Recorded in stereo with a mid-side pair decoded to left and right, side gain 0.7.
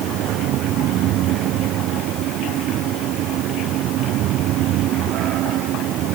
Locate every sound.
0.0 s a fan: 55° right